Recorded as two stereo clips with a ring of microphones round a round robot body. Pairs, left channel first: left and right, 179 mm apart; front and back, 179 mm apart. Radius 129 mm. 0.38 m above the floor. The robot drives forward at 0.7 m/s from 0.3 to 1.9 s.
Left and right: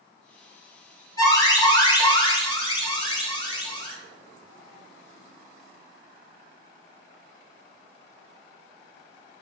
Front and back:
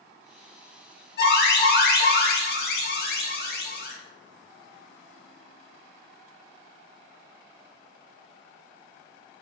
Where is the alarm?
20° left, 3 m; by 3.9 s 25° left, 2.5 m.